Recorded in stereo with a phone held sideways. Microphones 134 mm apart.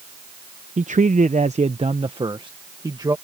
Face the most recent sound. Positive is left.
turn(degrees=-30)  # may be behind; listen again after turning